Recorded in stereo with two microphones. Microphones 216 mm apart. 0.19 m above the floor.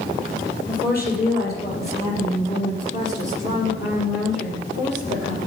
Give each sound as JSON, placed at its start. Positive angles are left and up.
{"t": 0.7, "sound": "a woman speaking", "side_deg": 40, "distance_m": 5.5}